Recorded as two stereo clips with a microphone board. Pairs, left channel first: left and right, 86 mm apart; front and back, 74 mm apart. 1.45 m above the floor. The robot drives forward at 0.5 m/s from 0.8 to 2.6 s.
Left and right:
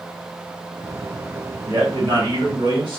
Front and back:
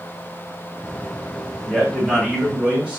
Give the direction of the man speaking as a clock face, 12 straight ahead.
3 o'clock.